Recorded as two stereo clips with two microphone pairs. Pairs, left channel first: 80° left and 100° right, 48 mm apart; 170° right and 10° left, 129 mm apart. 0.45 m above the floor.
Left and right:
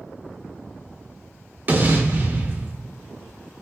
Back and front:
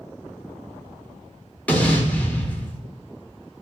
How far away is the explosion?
About 0.7 m.